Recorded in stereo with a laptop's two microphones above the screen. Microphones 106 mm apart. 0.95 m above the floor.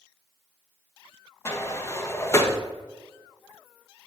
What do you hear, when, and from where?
1.4 s a sliding door: 25° left (ahead or behind), 1.2 m